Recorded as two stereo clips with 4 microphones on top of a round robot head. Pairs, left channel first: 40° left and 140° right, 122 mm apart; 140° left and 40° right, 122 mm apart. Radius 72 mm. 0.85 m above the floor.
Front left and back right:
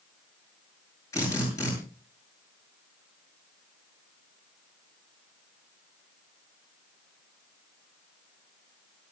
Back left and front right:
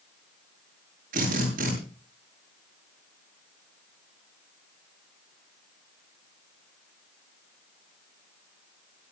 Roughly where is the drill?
Ahead right.